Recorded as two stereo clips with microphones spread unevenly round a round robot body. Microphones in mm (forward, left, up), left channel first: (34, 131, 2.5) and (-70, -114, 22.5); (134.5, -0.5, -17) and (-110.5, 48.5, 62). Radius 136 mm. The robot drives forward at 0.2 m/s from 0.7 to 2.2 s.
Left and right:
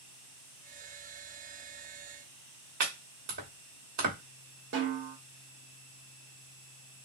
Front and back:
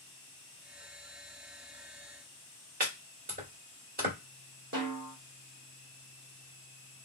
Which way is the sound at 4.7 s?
160° right.